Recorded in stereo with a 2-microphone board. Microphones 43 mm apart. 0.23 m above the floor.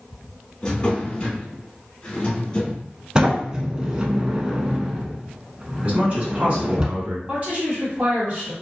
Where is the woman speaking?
35° right (ahead or behind), 1.6 m.